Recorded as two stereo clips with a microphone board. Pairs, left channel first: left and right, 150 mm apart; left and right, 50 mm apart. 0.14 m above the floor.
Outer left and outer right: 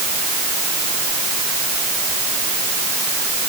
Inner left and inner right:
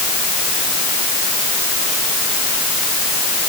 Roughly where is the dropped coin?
I don't hear a dropped coin.